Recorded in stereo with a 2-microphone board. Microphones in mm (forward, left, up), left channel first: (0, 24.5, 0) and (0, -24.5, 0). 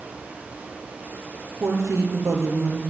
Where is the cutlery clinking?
No cutlery clinking in this recording.